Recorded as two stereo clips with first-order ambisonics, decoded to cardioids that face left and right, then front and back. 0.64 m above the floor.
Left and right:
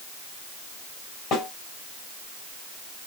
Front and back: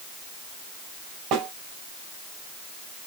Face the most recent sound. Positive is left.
turn(degrees=145)